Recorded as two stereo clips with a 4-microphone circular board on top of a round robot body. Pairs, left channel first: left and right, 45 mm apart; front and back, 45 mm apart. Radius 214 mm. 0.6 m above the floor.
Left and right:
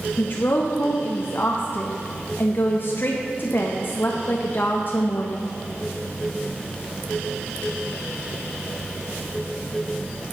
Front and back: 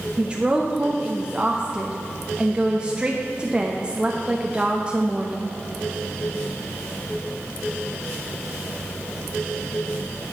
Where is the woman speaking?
115° left, 1.1 m.